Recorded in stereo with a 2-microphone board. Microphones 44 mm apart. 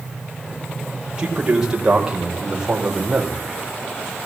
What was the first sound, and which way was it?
A man speaking, 20° right (ahead or behind).